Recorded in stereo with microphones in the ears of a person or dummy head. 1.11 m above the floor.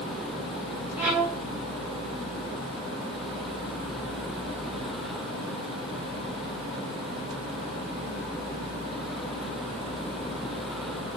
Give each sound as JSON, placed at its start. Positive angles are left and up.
{"t": 1.0, "sound": "a violin", "side_deg": -5, "distance_m": 0.5}